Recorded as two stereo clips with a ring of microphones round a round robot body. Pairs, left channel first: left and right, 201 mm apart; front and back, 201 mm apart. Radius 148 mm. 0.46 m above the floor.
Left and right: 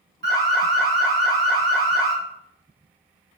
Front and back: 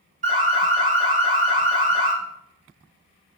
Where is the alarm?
130° right, 1.4 m.